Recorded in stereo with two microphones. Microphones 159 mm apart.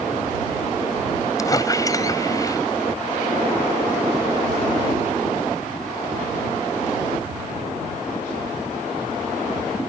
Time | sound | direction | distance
1.4 | a squeak | 25° left (ahead or behind) | ?